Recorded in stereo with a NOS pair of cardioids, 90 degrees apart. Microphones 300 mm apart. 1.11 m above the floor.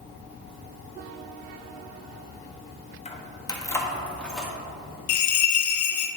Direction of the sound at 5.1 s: 70° left.